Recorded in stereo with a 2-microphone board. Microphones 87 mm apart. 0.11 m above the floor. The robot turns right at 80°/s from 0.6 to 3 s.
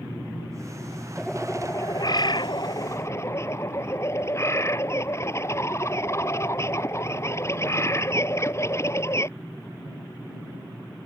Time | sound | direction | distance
1.2 | a bird | 5° right | ?